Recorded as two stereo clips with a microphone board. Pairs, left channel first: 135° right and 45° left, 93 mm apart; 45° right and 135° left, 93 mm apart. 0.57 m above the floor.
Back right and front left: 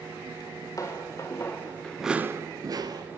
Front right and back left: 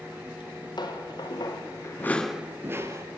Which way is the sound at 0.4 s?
85° right.